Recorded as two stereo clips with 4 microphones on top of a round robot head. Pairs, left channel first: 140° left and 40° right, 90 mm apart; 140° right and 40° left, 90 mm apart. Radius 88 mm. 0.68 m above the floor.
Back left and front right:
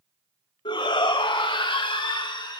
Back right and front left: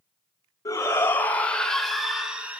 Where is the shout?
165° left, 2.5 m; by 2.6 s 110° left, 2.5 m.